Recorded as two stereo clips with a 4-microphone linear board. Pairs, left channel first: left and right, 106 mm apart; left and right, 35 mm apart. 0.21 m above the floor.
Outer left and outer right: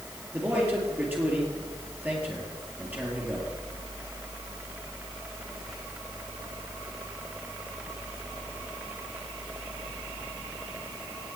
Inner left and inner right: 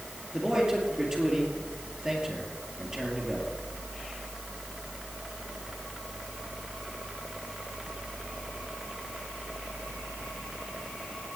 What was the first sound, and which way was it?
A man speaking, 15° right (ahead or behind).